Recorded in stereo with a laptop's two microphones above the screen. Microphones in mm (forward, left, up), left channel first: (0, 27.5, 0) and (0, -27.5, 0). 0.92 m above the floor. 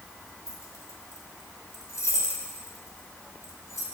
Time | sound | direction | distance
0.5 | keys jangling | 70° left (ahead or behind) | 1.3 m